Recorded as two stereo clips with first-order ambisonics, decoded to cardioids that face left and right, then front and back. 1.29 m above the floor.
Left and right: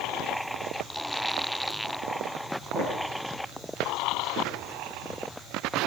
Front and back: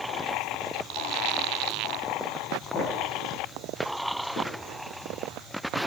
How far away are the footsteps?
About 9 m.